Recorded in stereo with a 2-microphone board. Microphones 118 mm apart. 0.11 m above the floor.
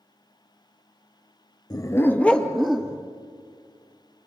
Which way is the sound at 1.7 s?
35° left (ahead or behind).